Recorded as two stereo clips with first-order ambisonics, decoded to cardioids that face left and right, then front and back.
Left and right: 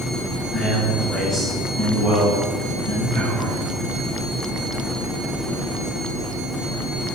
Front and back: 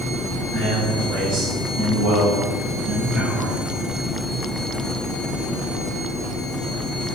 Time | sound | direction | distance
0.5 | a man speaking | 175° left | 1.4 m